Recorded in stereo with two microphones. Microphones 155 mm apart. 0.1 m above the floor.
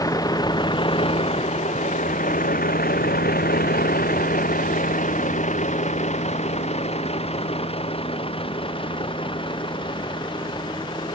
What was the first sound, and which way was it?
A vehicle, 25° left (ahead or behind).